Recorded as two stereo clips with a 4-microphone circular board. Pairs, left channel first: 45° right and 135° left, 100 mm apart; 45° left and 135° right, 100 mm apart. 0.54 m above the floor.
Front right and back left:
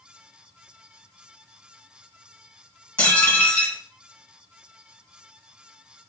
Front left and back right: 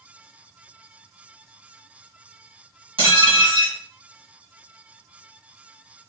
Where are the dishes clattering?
115° right, 2 m.